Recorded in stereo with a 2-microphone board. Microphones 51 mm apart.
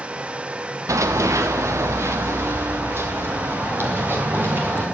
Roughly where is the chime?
No chime in this recording.